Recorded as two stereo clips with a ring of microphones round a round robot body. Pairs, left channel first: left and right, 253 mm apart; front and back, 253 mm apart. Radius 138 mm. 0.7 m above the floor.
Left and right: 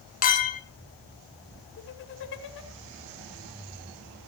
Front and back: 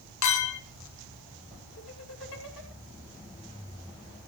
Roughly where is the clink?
Ahead left.